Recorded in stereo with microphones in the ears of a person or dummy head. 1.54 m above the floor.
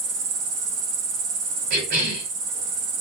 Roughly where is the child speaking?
No child speaking in this recording.